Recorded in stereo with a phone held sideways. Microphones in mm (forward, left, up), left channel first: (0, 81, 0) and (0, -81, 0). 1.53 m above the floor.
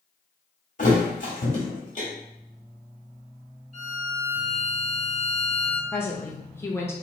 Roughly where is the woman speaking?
Centre.